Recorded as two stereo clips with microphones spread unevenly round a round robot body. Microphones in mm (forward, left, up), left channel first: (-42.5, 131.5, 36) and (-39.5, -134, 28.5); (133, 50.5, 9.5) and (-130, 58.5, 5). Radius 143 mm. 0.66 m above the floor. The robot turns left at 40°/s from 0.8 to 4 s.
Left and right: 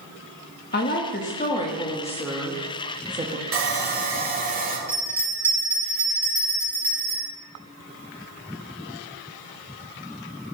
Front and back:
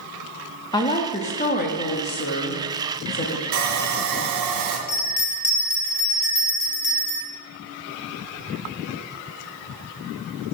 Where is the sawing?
130° right, 2 m; by 4.8 s 150° right, 2 m.